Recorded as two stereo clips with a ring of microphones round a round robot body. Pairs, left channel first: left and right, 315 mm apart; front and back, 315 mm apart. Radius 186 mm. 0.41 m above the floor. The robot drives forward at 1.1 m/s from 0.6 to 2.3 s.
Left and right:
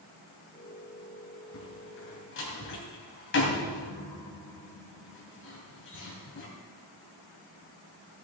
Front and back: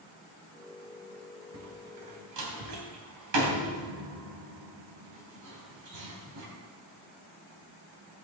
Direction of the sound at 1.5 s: 135° left.